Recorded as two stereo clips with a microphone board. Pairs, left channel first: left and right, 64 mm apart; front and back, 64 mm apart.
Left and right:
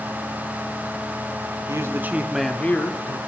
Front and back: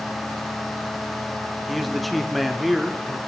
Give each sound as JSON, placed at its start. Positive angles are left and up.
{"t": 1.7, "sound": "a man speaking", "azimuth_deg": -85, "distance_m": 0.9}